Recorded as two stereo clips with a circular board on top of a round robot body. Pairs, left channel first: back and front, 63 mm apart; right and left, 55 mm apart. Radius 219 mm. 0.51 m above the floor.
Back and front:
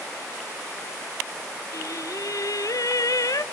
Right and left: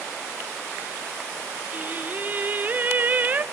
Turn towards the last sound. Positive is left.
turn(degrees=150)